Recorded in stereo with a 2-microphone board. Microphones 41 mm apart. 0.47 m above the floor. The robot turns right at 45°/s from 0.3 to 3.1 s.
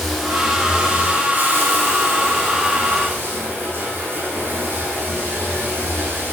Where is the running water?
Straight behind, 5 m; by 6.3 s 55° right, 5 m.